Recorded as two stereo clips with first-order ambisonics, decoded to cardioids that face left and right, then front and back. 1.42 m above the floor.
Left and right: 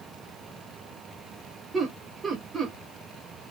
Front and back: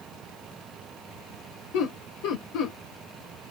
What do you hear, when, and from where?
1.7 s laughter: 20° right, 1.2 m